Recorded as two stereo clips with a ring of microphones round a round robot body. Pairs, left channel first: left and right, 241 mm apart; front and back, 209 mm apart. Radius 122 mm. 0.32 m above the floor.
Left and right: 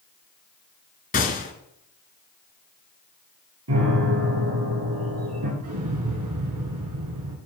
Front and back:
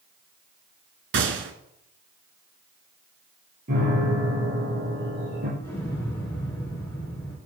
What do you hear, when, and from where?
1.1 s a gunshot: 150° left, 1.3 m
3.7 s a piano: 125° right, 3.5 m
5.6 s an explosion: 80° right, 2.5 m